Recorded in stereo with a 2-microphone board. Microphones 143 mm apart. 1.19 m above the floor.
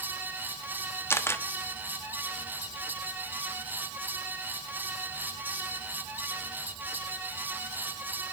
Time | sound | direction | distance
1.1 | a camera shutter | 15° left (ahead or behind) | 0.9 m